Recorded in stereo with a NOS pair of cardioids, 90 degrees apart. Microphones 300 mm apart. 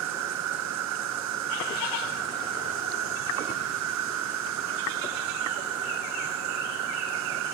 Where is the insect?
70° right.